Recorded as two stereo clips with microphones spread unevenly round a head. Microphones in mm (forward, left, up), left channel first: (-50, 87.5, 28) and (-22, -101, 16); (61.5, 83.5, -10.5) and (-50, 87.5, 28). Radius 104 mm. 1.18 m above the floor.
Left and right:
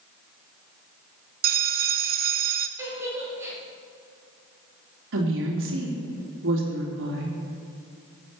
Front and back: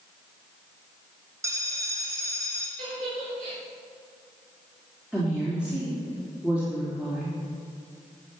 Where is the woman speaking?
95° right, 2.5 m.